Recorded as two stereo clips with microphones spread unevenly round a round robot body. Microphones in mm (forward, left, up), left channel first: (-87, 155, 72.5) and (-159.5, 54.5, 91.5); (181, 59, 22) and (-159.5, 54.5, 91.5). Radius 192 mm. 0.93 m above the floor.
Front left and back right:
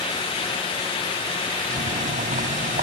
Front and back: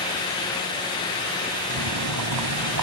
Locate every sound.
1.7 s boiling: 135° right